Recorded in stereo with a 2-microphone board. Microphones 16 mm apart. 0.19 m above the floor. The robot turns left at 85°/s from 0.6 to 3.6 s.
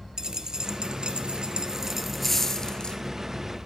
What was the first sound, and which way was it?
A dropped coin, 45° right.